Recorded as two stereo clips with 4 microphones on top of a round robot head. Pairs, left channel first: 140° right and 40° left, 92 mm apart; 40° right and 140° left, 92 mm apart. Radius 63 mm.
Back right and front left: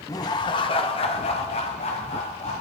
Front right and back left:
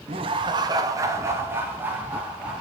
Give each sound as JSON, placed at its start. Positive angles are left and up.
{"t": 0.1, "sound": "laughter", "azimuth_deg": 165, "distance_m": 1.6}